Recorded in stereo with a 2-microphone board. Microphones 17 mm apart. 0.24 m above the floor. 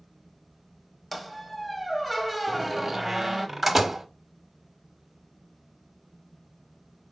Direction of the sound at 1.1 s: Centre (ahead or behind).